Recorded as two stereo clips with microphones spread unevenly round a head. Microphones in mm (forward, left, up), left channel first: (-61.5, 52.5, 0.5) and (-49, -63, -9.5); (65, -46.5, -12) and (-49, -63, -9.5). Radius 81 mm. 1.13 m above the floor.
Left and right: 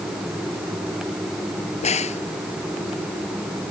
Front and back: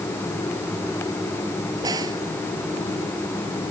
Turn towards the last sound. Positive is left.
turn(degrees=120)